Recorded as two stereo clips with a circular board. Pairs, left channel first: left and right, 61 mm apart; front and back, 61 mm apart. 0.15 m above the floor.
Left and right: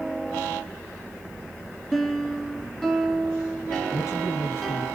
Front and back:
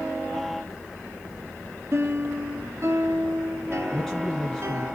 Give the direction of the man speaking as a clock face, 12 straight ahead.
9 o'clock.